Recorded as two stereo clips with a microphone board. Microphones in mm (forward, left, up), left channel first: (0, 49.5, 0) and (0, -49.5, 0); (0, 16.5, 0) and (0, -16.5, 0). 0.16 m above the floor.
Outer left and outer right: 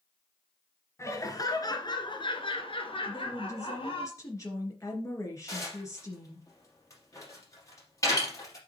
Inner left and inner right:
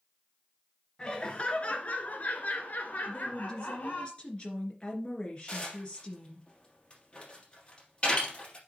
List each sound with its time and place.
1.0 s laughter: 30° left (ahead or behind), 2 m; by 4.1 s 60° left (ahead or behind), 3 m
3.1 s a woman speaking: 30° left (ahead or behind), 2.5 m
5.5 s dishes clattering: 30° left (ahead or behind), 3 m